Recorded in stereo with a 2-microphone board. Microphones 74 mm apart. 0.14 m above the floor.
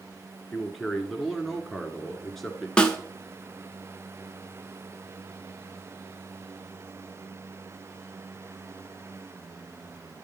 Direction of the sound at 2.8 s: 15° left (ahead or behind).